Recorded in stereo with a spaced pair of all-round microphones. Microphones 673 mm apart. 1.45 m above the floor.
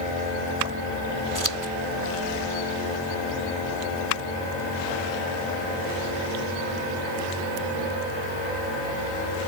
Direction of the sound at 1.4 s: 25° right (ahead or behind).